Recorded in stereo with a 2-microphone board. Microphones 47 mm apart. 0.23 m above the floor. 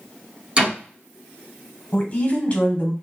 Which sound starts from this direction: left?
A woman speaking, at 1.9 s.